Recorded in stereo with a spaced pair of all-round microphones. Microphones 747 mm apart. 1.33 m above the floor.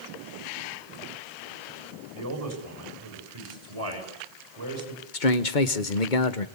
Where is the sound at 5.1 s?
90° left, 1.4 m.